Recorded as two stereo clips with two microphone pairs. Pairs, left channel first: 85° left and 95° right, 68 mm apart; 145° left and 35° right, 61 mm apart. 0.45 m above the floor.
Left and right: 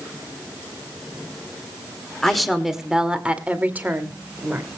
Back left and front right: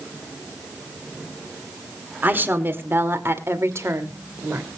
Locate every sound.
2.2 s a woman speaking: straight ahead, 1.6 m; by 4.7 s 55° right, 2 m